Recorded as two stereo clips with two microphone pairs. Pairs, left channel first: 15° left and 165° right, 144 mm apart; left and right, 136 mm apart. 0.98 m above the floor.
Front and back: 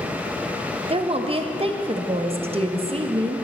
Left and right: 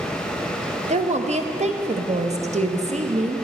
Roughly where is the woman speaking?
Behind right.